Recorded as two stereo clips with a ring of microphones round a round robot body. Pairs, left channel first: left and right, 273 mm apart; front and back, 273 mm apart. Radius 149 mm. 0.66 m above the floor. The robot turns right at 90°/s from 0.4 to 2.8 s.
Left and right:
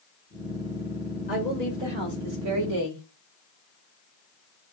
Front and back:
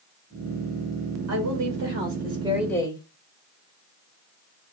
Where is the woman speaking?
145° left, 3 m; by 3.0 s 75° right, 3 m.